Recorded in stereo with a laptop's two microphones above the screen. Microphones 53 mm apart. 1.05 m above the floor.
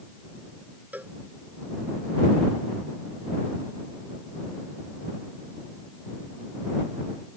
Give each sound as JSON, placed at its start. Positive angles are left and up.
{"t": 0.9, "sound": "a cowbell", "side_deg": -35}